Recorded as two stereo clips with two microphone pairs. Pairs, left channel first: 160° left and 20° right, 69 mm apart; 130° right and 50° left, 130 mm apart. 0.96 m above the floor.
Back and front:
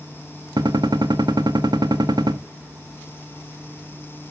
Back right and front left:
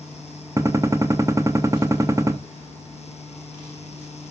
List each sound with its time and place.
0.6 s a gunshot: 15° right, 1.2 m